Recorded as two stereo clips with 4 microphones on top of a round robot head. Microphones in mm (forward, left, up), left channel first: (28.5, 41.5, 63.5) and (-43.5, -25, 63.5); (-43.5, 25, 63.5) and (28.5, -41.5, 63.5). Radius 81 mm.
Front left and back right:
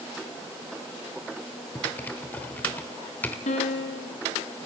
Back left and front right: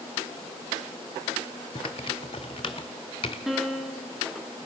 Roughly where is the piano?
Ahead left.